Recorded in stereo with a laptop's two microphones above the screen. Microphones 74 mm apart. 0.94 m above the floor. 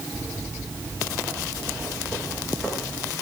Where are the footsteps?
5° left (ahead or behind), 9.5 m; by 3.1 s 15° left (ahead or behind), 8.5 m.